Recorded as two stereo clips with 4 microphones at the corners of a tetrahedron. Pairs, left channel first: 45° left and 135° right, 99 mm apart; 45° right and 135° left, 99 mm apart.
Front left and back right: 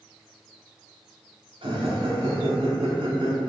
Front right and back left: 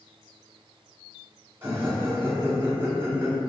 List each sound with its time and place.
1.6 s laughter: 160° right, 1.1 m